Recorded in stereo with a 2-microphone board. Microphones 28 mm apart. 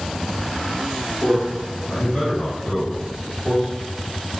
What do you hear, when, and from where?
1.2 s a man speaking: 20° left (ahead or behind), 1.7 m; by 4.4 s centre (ahead or behind), 1.1 m